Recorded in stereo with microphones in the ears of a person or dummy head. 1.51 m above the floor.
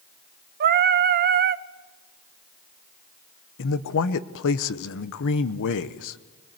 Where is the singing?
50° right (ahead or behind), 0.6 m.